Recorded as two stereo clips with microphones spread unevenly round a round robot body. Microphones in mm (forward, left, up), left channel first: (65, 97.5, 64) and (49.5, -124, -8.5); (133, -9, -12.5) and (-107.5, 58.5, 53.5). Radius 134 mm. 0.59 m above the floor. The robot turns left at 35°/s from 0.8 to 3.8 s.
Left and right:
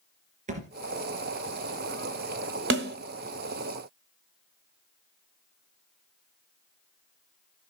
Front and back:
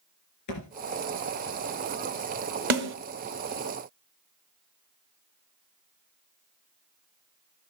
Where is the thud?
35° right, 2.5 m.